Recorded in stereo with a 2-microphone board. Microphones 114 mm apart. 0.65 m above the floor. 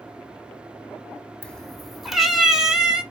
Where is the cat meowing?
10° left (ahead or behind), 0.7 m; by 3.0 s 10° right (ahead or behind), 1.7 m.